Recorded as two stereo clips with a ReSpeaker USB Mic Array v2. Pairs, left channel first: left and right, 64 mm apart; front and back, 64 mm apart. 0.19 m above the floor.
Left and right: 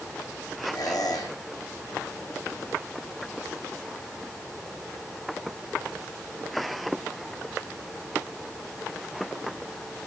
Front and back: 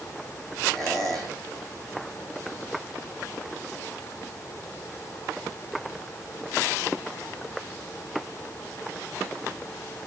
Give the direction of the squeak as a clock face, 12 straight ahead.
9 o'clock.